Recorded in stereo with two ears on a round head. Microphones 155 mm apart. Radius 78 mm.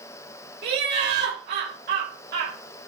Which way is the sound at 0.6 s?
60° right (ahead or behind).